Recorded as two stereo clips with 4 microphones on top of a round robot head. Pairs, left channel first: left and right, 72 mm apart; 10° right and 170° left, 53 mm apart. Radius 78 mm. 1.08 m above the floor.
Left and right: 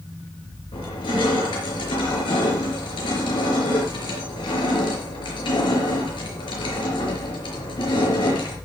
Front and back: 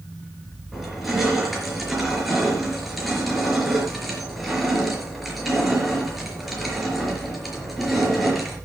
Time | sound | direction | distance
0.7 | crushing | 85° left | 4.5 m